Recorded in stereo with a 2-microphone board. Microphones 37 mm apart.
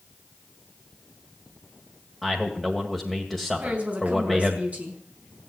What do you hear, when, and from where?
2.2 s a man speaking: centre (ahead or behind), 2 m
3.6 s a woman speaking: 40° right (ahead or behind), 4.5 m